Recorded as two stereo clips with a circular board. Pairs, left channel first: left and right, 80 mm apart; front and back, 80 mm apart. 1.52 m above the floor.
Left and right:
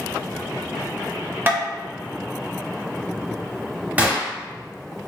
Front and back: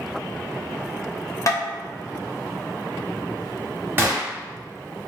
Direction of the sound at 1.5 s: 30° right.